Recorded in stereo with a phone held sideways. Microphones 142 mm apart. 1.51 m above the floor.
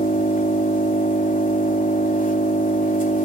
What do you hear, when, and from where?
0.0 s an engine running: 70° left (ahead or behind), 3 m